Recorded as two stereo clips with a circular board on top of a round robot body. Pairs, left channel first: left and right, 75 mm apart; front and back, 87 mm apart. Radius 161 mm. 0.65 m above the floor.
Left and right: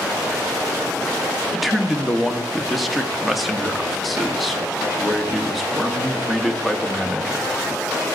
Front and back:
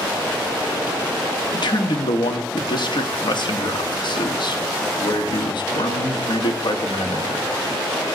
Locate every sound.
1.5 s a man speaking: straight ahead, 1.5 m